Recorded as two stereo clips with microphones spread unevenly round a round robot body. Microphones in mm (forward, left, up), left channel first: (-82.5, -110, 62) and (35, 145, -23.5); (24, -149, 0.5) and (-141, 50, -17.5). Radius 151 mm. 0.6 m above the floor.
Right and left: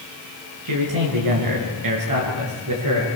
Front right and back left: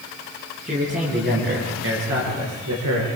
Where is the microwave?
I don't hear a microwave.